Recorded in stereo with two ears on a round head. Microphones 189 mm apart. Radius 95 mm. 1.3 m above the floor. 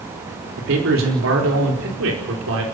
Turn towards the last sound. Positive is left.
turn(degrees=-75)  # may be behind; listen again after turning